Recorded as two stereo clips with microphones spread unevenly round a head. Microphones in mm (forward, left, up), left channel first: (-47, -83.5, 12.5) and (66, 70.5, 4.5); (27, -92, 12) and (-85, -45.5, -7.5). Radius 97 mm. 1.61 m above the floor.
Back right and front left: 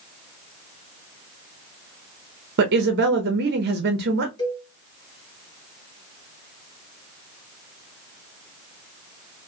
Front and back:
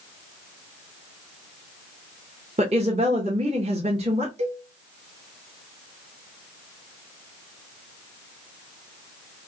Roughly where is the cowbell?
Behind.